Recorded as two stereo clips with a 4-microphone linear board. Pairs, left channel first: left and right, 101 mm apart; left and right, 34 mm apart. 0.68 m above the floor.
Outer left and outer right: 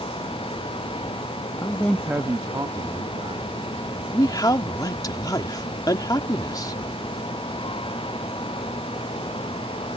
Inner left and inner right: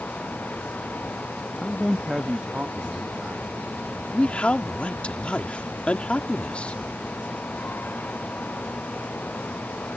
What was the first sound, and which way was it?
A man speaking, 35° left (ahead or behind).